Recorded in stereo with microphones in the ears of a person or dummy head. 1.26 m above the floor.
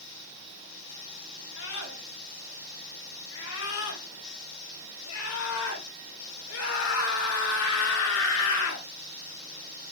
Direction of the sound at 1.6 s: 85° left.